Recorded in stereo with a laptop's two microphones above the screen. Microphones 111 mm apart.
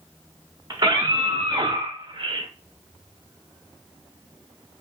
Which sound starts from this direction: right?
A scream, at 0.7 s.